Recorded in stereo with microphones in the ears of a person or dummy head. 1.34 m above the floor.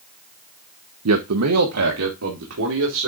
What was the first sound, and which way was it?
A man speaking, 80° right.